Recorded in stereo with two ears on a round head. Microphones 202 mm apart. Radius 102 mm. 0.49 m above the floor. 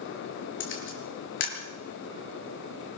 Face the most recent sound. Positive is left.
turn(degrees=60)  # may be behind; listen again after turning